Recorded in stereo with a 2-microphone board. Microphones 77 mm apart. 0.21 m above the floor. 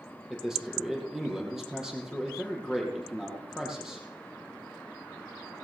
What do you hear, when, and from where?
0.3 s a man speaking: 5° right (ahead or behind), 5.5 m